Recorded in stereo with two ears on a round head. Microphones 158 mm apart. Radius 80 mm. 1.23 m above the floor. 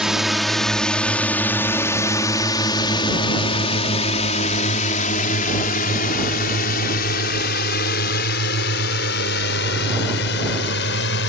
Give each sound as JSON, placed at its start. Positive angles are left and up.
{"t": 0.0, "sound": "a drone", "side_deg": -5}